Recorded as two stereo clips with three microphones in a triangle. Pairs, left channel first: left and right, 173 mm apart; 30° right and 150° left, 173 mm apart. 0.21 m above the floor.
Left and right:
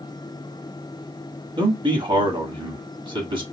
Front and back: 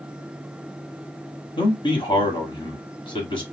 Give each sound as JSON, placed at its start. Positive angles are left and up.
{"t": 1.6, "sound": "a man speaking", "azimuth_deg": -60, "distance_m": 1.4}